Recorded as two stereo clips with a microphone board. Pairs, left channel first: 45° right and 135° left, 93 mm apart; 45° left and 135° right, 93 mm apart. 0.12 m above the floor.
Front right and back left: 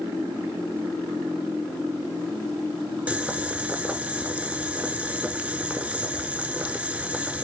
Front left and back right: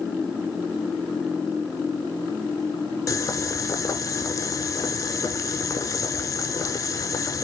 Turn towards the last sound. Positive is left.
turn(degrees=65)